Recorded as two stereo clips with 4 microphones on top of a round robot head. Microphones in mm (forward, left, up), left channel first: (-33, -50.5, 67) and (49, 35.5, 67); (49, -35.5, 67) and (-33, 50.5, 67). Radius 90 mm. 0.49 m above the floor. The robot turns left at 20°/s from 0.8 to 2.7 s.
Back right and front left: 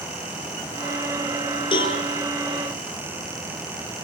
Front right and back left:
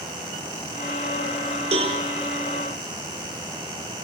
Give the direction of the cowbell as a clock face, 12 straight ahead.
6 o'clock.